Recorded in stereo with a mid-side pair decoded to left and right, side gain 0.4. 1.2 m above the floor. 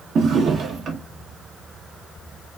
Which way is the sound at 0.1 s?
65° right.